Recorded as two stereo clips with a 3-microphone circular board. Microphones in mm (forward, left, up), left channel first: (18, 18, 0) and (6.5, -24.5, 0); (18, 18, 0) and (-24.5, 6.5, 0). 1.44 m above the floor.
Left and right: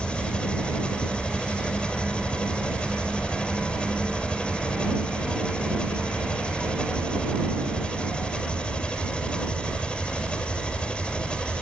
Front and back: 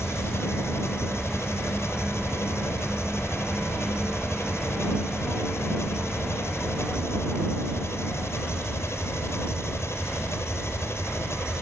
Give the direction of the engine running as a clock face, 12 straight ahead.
12 o'clock.